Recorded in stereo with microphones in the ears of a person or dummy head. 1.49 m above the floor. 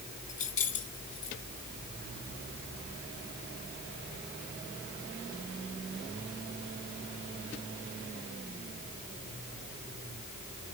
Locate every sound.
0.3 s keys jangling: 45° left (ahead or behind), 2.5 m